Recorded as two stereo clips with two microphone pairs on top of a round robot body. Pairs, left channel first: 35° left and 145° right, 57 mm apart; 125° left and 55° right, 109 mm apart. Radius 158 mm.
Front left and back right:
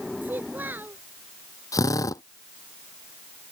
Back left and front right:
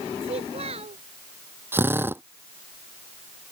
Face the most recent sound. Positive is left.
turn(degrees=15)